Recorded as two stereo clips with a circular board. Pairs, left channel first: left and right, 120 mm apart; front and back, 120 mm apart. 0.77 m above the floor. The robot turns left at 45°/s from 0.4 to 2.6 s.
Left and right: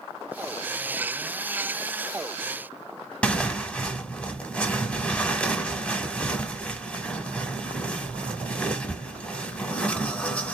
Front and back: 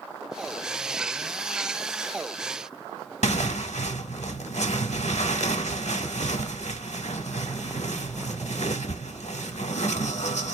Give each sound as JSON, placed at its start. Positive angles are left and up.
{"t": 3.2, "sound": "tearing paper", "azimuth_deg": 10, "distance_m": 0.9}